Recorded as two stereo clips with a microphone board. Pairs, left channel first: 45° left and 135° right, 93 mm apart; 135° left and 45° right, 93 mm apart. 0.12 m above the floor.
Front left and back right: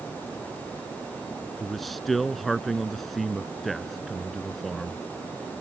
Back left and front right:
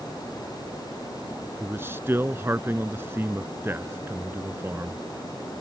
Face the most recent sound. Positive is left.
turn(degrees=-40)